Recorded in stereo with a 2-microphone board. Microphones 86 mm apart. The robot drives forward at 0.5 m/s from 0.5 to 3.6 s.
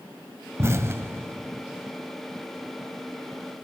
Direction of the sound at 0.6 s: 30° right (ahead or behind).